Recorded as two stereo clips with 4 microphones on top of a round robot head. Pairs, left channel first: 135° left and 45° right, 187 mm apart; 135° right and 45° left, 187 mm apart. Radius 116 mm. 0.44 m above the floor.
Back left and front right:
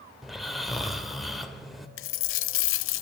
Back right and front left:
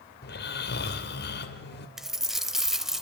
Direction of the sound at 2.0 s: 135° left.